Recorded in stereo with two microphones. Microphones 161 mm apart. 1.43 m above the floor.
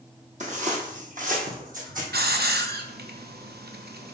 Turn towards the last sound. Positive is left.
turn(degrees=-85)